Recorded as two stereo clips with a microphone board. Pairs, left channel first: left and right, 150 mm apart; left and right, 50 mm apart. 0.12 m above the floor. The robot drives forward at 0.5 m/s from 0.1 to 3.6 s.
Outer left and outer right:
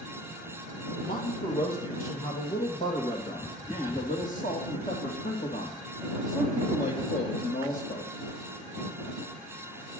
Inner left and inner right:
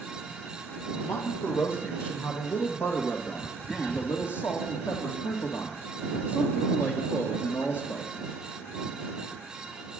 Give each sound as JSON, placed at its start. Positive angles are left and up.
{"t": 1.0, "sound": "a man speaking", "side_deg": 70, "distance_m": 3.5}